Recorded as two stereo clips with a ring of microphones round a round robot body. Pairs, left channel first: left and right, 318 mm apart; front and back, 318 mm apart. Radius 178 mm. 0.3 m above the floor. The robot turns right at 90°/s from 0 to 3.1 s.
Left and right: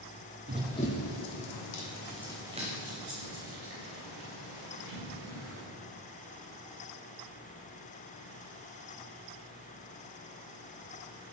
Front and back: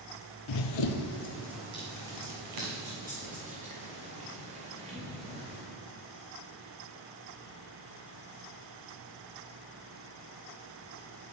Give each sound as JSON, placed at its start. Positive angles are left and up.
{"t": 0.5, "sound": "running footsteps", "azimuth_deg": -30, "distance_m": 0.6}